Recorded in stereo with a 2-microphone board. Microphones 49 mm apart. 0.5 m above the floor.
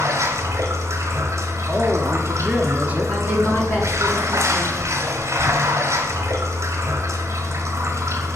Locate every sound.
0.0 s running water: 75° right (ahead or behind), 1.2 m
1.7 s a woman speaking: 25° right (ahead or behind), 1.1 m
3.1 s a woman speaking: 50° left (ahead or behind), 4 m